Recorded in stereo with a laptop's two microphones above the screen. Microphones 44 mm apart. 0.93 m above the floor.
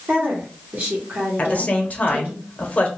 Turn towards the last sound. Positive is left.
turn(degrees=35)  # may be behind; listen again after turning